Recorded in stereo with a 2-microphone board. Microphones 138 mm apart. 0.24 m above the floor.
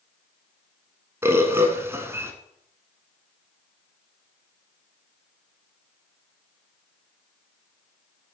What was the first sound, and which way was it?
A bird, 20° right (ahead or behind).